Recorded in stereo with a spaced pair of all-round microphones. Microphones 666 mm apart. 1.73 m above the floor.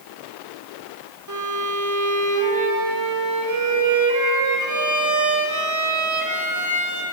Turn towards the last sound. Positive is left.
turn(degrees=-30)  # may be behind; listen again after turning